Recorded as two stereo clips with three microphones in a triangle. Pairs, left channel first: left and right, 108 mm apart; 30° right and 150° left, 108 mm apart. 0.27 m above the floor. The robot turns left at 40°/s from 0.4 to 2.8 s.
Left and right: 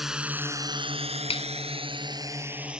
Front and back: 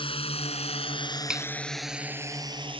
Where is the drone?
5° right; by 2.8 s 175° right.